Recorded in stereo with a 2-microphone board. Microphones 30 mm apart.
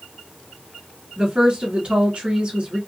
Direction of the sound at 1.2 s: 35° right (ahead or behind).